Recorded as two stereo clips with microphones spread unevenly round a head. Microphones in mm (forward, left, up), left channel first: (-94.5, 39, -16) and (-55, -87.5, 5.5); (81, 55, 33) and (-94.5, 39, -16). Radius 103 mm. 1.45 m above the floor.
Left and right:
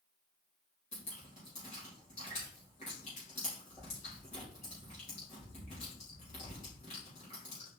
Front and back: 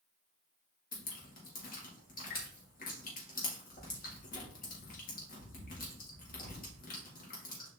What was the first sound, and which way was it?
Dripping, 50° left.